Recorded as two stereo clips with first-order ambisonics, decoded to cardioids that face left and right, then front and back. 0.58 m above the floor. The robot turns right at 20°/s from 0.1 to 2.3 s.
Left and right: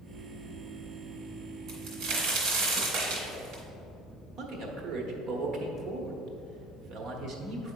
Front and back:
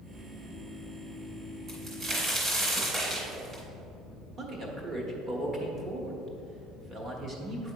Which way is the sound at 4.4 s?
125° right.